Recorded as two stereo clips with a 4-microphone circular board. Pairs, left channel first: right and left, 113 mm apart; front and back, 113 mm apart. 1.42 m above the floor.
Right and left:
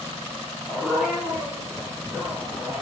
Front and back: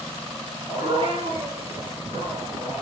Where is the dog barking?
Straight behind, 7 m; by 2.8 s 170° left, 8 m.